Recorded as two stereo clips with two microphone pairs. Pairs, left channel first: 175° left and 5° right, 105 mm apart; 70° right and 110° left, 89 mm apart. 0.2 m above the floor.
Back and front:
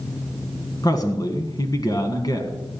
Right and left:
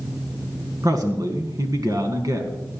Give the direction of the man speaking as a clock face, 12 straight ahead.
7 o'clock.